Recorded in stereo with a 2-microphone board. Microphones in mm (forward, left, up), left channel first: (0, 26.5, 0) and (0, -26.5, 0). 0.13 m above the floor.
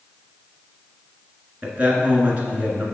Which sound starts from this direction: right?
A man speaking, at 1.6 s.